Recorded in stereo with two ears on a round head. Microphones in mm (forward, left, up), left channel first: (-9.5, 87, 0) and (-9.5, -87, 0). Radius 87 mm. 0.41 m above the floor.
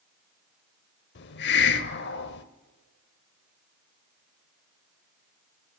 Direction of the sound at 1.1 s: 60° left (ahead or behind).